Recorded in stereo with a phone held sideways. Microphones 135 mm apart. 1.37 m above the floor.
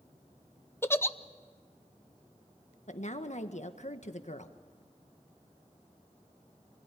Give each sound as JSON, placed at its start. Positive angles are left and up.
{"t": 0.8, "sound": "a giggle", "side_deg": 20, "distance_m": 0.7}
{"t": 2.9, "sound": "a woman speaking", "side_deg": 60, "distance_m": 1.5}